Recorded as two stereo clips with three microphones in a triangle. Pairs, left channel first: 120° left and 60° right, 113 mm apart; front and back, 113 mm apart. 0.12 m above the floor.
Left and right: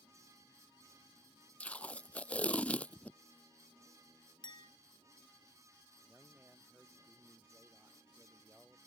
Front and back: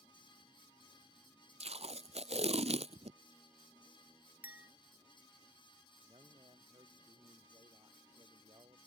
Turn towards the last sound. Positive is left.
turn(degrees=-140)